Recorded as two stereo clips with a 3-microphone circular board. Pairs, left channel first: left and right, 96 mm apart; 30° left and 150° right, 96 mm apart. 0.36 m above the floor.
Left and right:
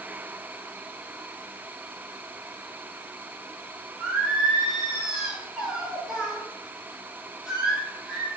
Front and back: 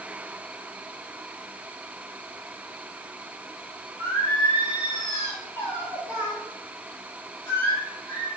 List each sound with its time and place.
4.0 s singing: 10° right, 1.8 m